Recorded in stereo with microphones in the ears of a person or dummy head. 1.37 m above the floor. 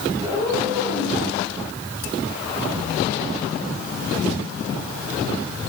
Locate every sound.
0.2 s a cat meowing: centre (ahead or behind), 5.5 m; by 1.2 s 5° right (ahead or behind), 6 m